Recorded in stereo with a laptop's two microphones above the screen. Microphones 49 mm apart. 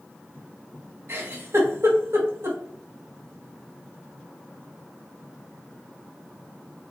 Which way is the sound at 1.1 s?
65° right (ahead or behind).